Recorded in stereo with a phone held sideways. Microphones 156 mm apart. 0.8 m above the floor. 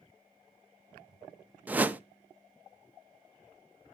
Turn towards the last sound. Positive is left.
turn(degrees=-10)  # may be behind; listen again after turning